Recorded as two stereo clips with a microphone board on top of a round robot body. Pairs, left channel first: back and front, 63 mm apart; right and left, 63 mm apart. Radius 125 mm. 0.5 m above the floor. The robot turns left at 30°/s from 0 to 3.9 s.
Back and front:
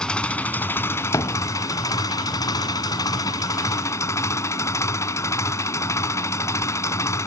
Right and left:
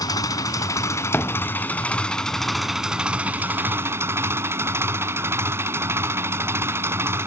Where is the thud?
145° right; by 1.5 s 160° right.